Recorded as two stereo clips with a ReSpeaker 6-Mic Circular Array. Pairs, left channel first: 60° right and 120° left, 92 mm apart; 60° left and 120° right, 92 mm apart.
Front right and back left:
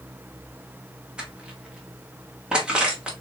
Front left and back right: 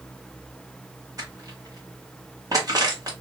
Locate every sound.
1.2 s crushing: 160° right, 1.3 m